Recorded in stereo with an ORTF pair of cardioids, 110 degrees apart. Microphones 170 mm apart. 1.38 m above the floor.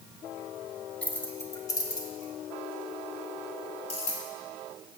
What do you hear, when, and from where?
1.0 s keys jangling: 10° left, 1.5 m; by 4.2 s 40° left, 3.5 m